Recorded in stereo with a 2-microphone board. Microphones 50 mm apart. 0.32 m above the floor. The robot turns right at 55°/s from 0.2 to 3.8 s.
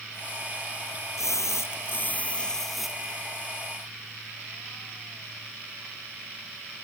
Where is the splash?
95° left; by 3.1 s 160° right.